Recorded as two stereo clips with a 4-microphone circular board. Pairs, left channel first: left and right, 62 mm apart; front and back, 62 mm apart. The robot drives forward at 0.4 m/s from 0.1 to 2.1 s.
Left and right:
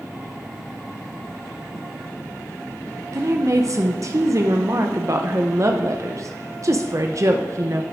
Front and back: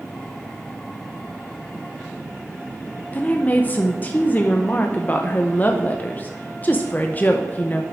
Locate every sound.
3.1 s a woman speaking: 60° right, 0.7 m